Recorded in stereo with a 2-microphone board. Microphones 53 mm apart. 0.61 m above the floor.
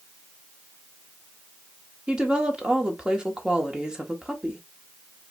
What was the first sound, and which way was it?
A woman speaking, 15° right (ahead or behind).